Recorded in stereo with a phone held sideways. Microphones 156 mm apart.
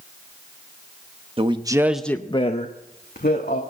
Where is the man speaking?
35° right (ahead or behind), 1.0 m; by 3.6 s 80° left, 1.6 m.